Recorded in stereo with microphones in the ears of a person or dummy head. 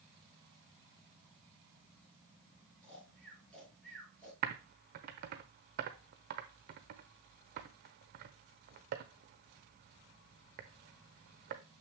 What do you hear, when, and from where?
2.8 s snoring: centre (ahead or behind), 4.5 m
4.4 s typing on a keyboard: 55° right (ahead or behind), 0.9 m